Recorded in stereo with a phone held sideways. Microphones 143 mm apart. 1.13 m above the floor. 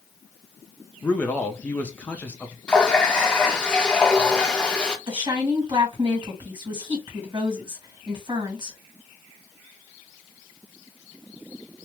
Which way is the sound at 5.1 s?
30° right (ahead or behind).